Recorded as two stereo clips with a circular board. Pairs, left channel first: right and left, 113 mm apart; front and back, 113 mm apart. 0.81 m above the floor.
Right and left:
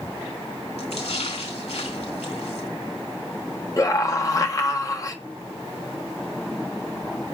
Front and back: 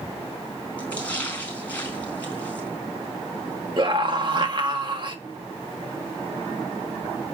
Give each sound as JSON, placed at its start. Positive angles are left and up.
{"t": 0.8, "sound": "a splash", "azimuth_deg": -75, "distance_m": 4.5}
{"t": 3.8, "sound": "a scream", "azimuth_deg": -145, "distance_m": 1.4}